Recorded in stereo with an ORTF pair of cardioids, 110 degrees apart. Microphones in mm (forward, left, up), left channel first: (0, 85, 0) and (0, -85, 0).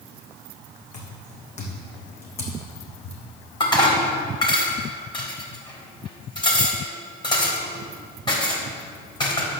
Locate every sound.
0.9 s footsteps: 45° left, 4.5 m; by 3.2 s 35° left, 3 m
3.6 s dishes clattering: 25° left, 3.5 m